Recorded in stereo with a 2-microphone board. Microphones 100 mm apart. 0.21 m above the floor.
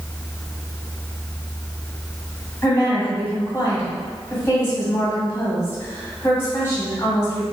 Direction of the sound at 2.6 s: 25° left (ahead or behind).